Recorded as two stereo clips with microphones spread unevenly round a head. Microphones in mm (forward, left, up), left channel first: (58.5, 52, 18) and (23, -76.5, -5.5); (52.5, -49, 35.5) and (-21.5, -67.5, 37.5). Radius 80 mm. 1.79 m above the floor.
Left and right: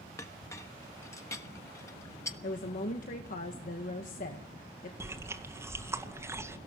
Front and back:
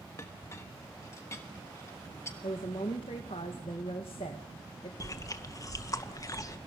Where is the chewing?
30° right, 2 m.